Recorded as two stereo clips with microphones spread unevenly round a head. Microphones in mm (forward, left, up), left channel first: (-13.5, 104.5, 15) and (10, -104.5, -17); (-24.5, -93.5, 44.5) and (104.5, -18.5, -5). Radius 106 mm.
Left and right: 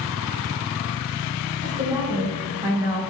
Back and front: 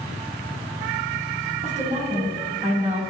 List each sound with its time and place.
1.6 s a woman speaking: 10° right, 2 m